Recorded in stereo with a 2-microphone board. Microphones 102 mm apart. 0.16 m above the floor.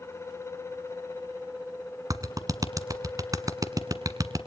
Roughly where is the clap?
Right.